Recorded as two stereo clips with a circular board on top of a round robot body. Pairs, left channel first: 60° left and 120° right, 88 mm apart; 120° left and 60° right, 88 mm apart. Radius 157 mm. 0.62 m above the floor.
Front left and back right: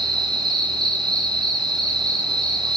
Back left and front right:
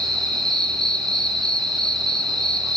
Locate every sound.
0.0 s an insect: 155° right, 2.5 m